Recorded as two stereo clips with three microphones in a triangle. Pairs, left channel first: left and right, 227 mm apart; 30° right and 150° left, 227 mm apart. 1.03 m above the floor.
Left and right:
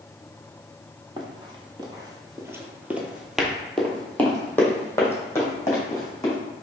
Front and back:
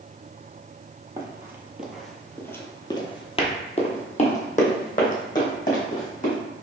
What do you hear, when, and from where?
1.2 s running footsteps: 145° right, 1.3 m; by 6.4 s 15° left, 2.5 m